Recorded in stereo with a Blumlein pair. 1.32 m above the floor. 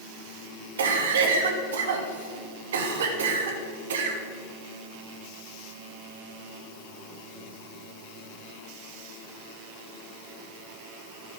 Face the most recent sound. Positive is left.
turn(degrees=-60)